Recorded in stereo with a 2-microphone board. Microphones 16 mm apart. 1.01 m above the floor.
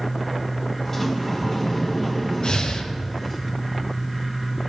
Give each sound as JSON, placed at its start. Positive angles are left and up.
{"t": 0.8, "sound": "a sliding door", "side_deg": 10, "distance_m": 1.5}
{"t": 2.4, "sound": "breathing", "side_deg": 55, "distance_m": 0.8}